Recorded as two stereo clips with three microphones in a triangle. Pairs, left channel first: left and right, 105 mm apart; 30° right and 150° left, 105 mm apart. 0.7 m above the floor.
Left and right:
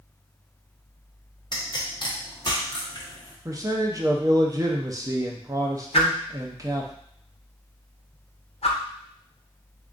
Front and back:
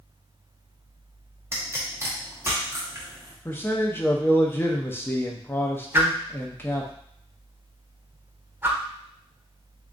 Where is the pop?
95° left, 1.0 m.